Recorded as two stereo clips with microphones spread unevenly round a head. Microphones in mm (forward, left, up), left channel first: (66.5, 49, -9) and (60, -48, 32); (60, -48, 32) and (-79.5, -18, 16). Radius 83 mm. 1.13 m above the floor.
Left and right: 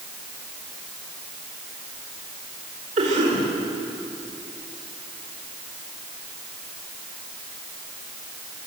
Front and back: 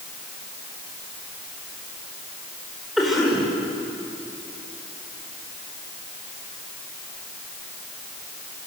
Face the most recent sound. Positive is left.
turn(degrees=-105)